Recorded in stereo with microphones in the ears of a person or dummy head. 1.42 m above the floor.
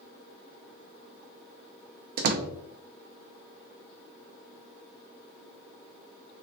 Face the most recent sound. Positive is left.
turn(degrees=-55)  # may be behind; listen again after turning